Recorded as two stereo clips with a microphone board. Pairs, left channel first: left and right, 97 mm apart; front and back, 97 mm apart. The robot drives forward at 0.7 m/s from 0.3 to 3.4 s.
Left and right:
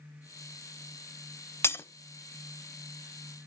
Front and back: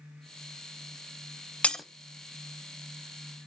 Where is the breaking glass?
65° left, 0.6 m; by 1.9 s 95° left, 0.6 m.